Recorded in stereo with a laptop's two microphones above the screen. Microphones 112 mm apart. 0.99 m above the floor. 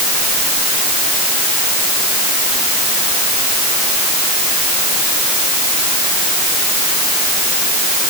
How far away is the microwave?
I don't hear a microwave.